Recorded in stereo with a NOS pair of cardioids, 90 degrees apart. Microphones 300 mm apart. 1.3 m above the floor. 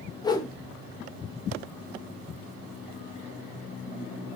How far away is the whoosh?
About 0.6 m.